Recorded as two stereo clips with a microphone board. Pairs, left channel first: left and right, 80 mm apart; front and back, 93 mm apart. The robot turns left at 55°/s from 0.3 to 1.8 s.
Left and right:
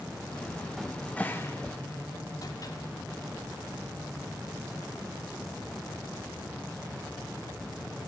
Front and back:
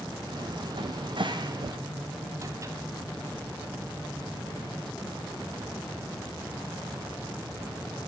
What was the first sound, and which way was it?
A cupboard door, 175° right.